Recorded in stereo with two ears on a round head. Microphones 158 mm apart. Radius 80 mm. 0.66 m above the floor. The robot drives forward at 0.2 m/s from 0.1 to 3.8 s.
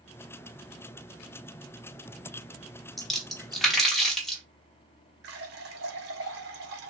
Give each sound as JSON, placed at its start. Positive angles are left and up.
{"t": 3.0, "sound": "a splash", "side_deg": 0, "distance_m": 0.7}
{"t": 5.2, "sound": "a running tap", "side_deg": -60, "distance_m": 0.8}